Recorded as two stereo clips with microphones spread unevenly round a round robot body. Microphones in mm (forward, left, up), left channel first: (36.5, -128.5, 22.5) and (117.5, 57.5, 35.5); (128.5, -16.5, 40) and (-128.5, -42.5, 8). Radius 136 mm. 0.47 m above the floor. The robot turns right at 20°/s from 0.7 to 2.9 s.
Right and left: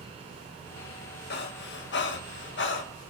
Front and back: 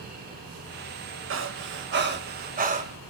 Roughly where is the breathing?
Behind right.